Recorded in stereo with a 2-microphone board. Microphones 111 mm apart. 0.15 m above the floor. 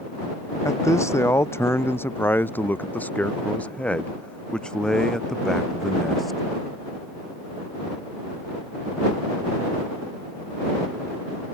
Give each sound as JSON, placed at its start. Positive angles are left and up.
{"t": 0.7, "sound": "a man speaking", "side_deg": 30}